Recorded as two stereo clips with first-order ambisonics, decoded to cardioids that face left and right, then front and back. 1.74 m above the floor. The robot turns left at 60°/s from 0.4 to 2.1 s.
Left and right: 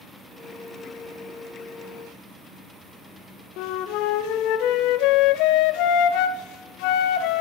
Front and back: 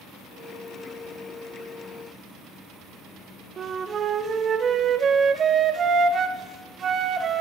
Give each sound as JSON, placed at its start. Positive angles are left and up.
{"t": 3.6, "sound": "a flute", "azimuth_deg": 120, "distance_m": 0.5}